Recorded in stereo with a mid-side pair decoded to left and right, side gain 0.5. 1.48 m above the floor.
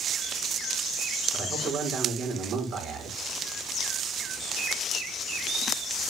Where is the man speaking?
50° right, 5 m.